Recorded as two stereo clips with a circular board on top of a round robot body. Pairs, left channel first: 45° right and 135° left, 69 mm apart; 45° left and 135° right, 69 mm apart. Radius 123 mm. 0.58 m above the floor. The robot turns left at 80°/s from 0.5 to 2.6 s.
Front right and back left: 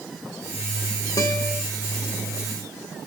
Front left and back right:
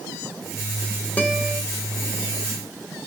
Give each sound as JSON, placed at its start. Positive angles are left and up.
{"t": 1.2, "sound": "a guitar", "azimuth_deg": -25, "distance_m": 2.5}